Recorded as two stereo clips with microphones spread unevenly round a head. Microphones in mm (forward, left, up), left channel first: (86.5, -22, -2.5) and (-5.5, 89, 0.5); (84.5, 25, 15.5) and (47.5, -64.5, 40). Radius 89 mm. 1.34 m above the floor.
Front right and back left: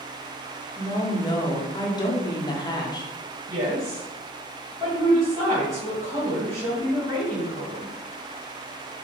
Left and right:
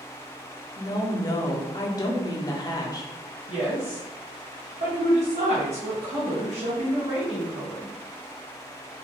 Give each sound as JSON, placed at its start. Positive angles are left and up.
{"t": 0.8, "sound": "a woman speaking", "azimuth_deg": 10, "distance_m": 0.6}
{"t": 3.5, "sound": "a woman speaking", "azimuth_deg": -155, "distance_m": 1.2}